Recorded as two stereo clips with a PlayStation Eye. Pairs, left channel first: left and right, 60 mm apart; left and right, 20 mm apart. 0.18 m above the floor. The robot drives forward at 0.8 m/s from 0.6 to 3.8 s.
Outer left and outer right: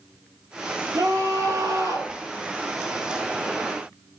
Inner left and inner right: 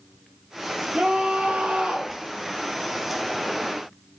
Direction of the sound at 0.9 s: 70° right (ahead or behind).